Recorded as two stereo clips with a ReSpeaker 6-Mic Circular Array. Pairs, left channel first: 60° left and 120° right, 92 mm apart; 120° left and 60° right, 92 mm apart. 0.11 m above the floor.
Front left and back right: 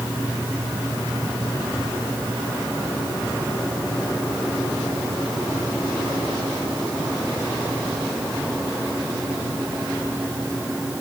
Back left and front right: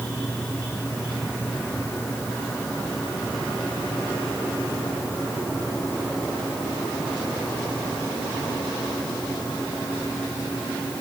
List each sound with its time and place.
Only background noise.